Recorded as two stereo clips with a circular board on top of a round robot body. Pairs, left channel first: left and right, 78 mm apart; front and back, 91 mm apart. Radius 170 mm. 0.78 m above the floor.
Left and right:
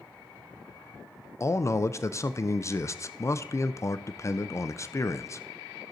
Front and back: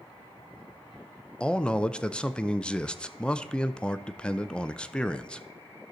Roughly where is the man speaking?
Left.